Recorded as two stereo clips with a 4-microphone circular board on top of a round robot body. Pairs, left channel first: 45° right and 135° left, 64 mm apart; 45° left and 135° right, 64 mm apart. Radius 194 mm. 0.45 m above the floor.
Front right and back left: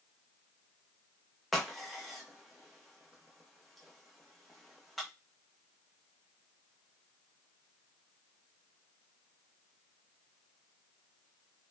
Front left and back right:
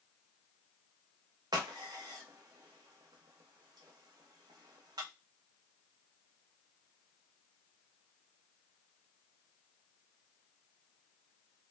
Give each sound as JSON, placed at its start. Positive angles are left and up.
{"t": 1.5, "sound": "a crack", "azimuth_deg": -135, "distance_m": 0.6}